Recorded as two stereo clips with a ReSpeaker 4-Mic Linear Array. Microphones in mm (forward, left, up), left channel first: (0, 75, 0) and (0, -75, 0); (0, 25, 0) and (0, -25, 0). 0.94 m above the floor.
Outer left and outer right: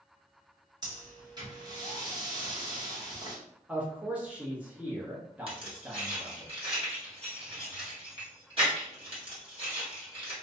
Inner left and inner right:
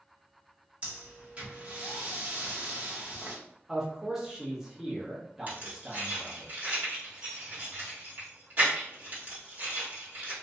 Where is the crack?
I don't hear a crack.